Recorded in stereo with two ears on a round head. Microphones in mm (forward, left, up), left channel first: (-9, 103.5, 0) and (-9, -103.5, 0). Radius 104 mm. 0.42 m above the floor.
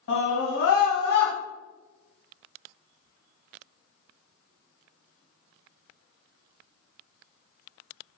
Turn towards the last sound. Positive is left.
turn(degrees=50)  # may be behind; listen again after turning